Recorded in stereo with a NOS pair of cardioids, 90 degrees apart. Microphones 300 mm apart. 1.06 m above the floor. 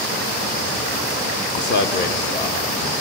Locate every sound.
1.6 s a man speaking: 40° left, 0.6 m; by 2.9 s 35° left, 2.5 m